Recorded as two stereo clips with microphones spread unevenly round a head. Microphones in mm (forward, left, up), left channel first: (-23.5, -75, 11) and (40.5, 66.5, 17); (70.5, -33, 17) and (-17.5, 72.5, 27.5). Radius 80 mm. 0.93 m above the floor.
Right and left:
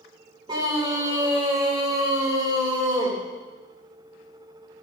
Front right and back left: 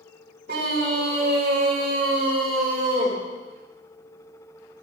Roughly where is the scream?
Behind left.